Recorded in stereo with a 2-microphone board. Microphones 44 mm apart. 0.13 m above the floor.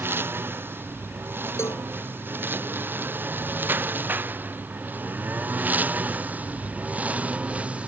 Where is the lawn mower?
55° right (ahead or behind); by 7.9 s 25° right (ahead or behind).